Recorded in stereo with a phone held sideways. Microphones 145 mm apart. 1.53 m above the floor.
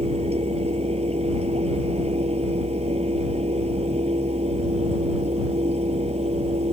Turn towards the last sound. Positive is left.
turn(degrees=-45)  # may be behind; listen again after turning